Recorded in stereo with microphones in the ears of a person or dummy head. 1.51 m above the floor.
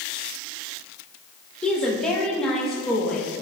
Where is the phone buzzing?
No phone buzzing in this recording.